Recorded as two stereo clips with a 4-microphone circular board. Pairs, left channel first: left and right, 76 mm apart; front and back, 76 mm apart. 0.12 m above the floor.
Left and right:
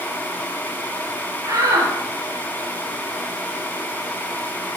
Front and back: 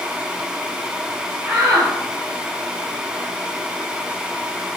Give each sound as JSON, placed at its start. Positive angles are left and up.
{"t": 1.4, "sound": "a shout", "azimuth_deg": -130, "distance_m": 3.0}